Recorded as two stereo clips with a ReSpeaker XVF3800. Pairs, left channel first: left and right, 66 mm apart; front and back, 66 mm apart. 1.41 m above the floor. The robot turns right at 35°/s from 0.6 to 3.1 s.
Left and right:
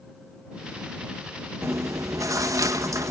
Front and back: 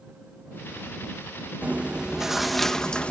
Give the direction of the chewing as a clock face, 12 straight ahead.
4 o'clock.